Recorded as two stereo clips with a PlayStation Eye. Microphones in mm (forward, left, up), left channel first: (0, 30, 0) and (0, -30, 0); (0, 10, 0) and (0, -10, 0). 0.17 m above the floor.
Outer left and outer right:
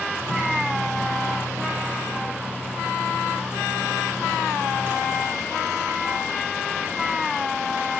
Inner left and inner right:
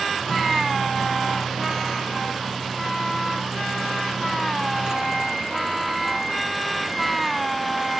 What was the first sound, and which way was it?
A microwave, 40° right (ahead or behind).